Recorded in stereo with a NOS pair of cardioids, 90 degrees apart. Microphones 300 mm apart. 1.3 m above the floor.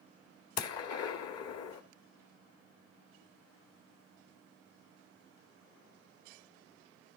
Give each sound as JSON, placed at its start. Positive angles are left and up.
{"t": 0.6, "sound": "a gunshot", "azimuth_deg": 60, "distance_m": 1.8}